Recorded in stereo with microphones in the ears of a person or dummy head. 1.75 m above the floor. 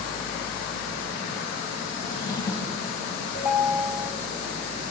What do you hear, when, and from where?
2.0 s a drawer: 20° left (ahead or behind), 1.6 m
3.3 s a ringtone: 10° right (ahead or behind), 2 m